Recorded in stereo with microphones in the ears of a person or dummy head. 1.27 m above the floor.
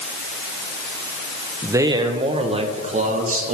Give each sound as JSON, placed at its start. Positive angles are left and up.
{"t": 1.6, "sound": "a man speaking", "side_deg": -10, "distance_m": 0.9}